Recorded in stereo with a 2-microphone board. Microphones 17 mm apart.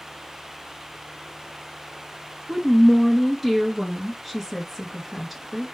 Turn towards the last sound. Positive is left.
turn(degrees=0)  # may be behind; listen again after turning